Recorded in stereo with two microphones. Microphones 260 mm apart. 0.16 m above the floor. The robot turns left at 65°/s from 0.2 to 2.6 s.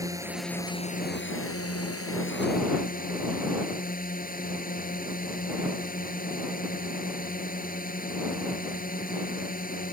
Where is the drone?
165° right; by 9.9 s 40° left.